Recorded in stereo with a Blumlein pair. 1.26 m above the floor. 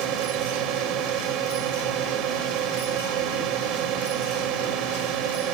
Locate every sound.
0.0 s a drone: 35° right